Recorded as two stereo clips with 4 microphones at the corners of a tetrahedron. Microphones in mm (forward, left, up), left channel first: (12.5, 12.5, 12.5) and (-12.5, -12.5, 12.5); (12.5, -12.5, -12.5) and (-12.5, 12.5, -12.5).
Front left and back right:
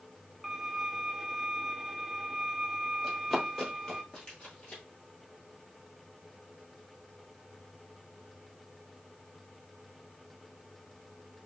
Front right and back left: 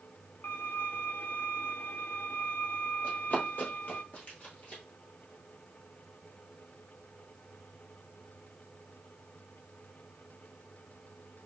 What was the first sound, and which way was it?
A violin, 50° right.